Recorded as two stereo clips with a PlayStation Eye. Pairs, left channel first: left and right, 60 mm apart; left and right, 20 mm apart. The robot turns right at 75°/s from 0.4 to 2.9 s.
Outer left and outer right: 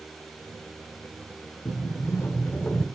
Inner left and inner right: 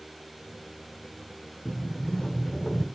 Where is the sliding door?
80° left, 1.9 m; by 2.9 s 170° left, 1.9 m.